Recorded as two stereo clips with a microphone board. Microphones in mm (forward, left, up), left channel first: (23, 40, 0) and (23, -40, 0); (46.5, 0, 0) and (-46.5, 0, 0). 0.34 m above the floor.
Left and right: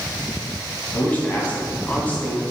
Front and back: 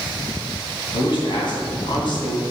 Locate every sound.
0.9 s a man speaking: 20° left, 2.5 m